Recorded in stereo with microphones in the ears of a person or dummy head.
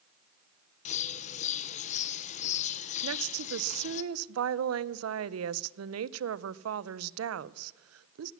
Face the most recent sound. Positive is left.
turn(degrees=-75)  # may be behind; listen again after turning